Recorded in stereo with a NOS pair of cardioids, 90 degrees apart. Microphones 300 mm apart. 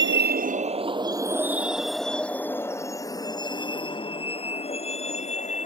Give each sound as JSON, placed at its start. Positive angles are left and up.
{"t": 0.0, "sound": "a vehicle", "azimuth_deg": -40}